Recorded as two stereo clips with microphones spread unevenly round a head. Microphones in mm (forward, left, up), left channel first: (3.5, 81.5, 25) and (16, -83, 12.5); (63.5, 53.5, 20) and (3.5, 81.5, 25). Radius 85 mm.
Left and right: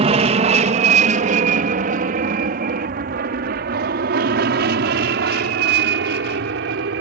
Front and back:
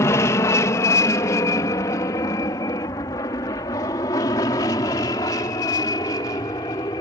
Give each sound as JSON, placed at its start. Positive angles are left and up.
{"t": 0.0, "sound": "an aircraft", "azimuth_deg": -50}